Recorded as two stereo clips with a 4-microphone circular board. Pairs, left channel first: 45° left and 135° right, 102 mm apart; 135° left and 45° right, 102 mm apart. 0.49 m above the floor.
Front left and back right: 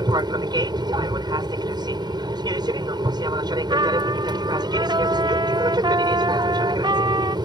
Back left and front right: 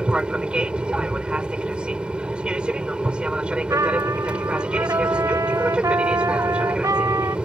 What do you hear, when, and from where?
0.0 s an aircraft: 120° right
3.7 s a trumpet: 100° right